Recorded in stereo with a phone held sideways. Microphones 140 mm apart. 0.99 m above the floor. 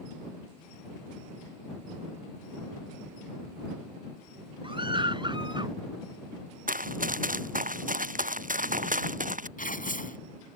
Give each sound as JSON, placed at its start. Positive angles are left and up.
{"t": 4.6, "sound": "a scream", "side_deg": -35}
{"t": 6.7, "sound": "running footsteps", "side_deg": -75}
{"t": 9.6, "sound": "tearing paper", "side_deg": 75}